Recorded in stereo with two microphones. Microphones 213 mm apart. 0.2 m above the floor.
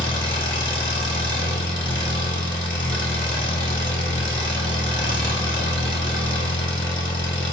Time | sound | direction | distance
0.0 | an engine running | 60° left (ahead or behind) | 0.9 m